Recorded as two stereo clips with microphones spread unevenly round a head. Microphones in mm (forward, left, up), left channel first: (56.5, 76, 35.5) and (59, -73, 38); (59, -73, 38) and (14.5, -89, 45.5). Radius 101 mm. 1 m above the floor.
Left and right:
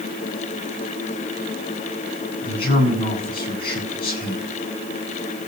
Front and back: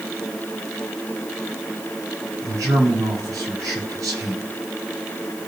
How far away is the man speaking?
About 6 m.